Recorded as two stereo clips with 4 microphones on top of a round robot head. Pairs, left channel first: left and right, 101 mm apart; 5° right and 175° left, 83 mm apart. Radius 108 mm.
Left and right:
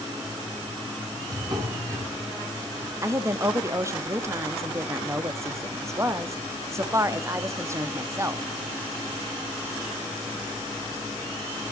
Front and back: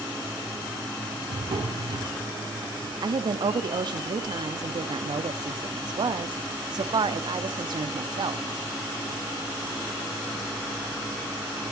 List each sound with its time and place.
1.3 s a drawer: 140° right, 4 m
3.0 s a woman speaking: 150° right, 1.3 m